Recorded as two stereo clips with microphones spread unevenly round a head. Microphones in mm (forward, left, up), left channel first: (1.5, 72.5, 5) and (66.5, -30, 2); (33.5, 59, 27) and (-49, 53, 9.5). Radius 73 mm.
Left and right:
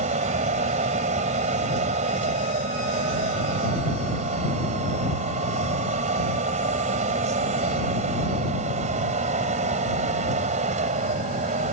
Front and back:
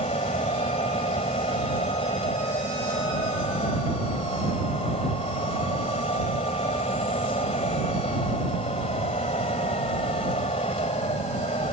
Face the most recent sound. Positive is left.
turn(degrees=-35)